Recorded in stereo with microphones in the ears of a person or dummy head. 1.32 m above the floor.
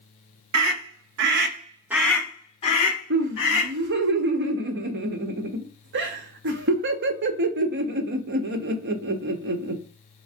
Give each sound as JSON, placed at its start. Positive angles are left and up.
{"t": 0.5, "sound": "a scream", "side_deg": -85, "distance_m": 1.1}
{"t": 3.1, "sound": "laughter", "side_deg": -55, "distance_m": 0.8}